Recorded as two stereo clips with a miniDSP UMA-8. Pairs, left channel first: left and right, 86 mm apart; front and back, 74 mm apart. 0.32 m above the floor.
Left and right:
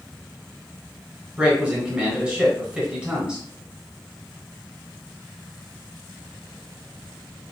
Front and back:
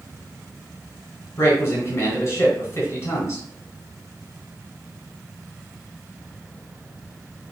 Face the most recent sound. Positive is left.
turn(degrees=-20)